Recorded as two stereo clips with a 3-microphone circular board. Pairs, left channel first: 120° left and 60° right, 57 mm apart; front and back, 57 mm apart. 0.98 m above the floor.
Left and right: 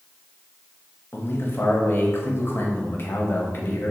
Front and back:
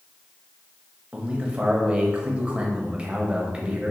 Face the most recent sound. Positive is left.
turn(degrees=120)